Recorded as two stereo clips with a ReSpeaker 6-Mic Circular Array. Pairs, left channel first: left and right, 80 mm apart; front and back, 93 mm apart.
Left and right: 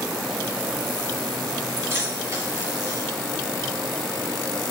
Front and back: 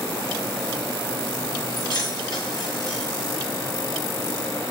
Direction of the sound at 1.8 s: 35° right.